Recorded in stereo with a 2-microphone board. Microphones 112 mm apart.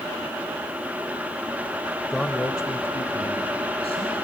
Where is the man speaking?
Centre (ahead or behind), 0.9 m; by 4.2 s 65° left (ahead or behind), 3 m.